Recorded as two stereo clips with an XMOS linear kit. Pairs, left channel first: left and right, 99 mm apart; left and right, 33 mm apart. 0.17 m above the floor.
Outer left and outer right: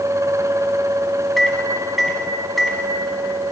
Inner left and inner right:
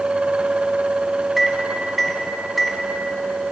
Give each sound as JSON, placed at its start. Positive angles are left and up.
{"t": 1.4, "sound": "a microwave", "side_deg": 0, "distance_m": 1.0}